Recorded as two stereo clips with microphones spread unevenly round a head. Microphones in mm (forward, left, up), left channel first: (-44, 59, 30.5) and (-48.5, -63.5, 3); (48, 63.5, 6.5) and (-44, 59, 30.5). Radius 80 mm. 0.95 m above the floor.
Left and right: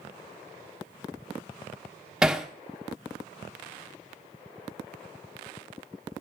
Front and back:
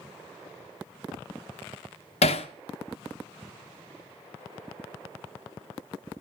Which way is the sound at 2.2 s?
5° right.